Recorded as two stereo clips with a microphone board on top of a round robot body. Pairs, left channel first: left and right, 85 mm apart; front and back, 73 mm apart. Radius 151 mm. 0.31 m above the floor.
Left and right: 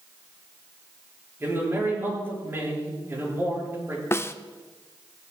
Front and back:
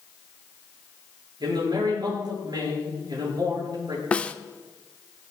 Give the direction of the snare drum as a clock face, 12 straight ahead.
10 o'clock.